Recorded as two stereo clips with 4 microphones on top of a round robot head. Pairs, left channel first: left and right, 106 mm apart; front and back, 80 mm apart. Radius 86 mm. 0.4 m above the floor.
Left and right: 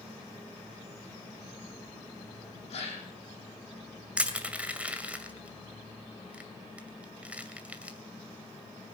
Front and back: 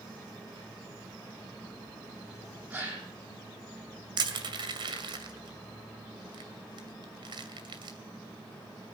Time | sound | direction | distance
2.7 | a gasp | 115° left | 6.5 m
4.2 | crushing | 165° right | 2 m